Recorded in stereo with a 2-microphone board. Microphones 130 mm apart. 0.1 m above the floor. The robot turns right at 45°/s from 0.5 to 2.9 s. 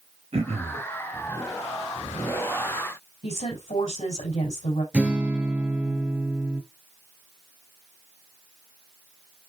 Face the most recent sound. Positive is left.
turn(degrees=-10)  # may be behind; listen again after turning